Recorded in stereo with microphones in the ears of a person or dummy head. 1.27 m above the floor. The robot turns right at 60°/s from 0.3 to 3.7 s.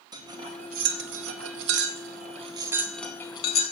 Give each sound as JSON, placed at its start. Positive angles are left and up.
{"t": 0.1, "sound": "cutlery clinking", "side_deg": -20, "distance_m": 1.0}